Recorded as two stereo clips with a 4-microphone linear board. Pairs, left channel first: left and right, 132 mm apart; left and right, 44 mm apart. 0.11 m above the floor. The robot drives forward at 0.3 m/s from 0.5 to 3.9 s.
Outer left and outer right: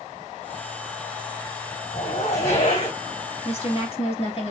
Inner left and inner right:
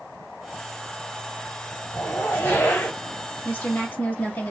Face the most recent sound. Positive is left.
turn(degrees=50)  # may be behind; listen again after turning